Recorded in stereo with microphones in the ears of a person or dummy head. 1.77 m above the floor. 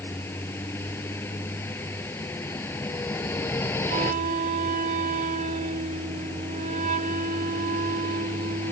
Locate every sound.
0.0 s a vehicle: 15° left (ahead or behind)
3.9 s a flute: 40° right (ahead or behind)